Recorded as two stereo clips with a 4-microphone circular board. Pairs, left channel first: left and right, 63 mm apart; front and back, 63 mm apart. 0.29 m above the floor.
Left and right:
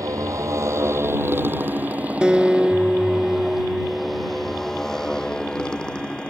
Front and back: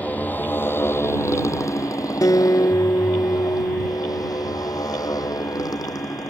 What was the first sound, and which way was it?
A motorcycle, 65° right.